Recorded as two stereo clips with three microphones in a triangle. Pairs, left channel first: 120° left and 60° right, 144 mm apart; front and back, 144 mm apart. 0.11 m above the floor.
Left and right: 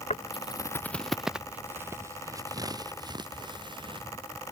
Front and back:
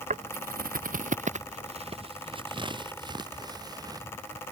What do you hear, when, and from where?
0.1 s footsteps: 155° left; by 4.1 s 115° right